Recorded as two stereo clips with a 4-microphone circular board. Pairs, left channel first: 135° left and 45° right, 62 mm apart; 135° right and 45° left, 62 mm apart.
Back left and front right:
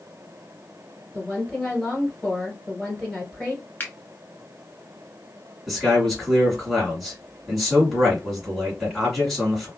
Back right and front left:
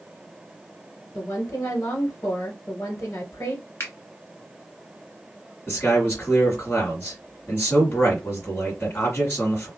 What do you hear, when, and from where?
1.1 s a woman speaking: 140° right, 1.8 m
3.8 s a finger snap: 170° right, 1.2 m
5.7 s a man speaking: 140° right, 1.7 m